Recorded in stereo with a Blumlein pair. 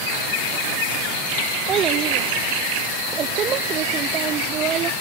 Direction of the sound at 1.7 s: 30° right.